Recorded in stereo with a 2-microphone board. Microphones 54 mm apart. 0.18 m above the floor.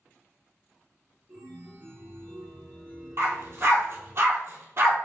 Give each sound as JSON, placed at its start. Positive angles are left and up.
{"t": 1.3, "sound": "a chime", "side_deg": -30, "distance_m": 1.7}
{"t": 3.2, "sound": "a dog barking", "side_deg": -45, "distance_m": 1.3}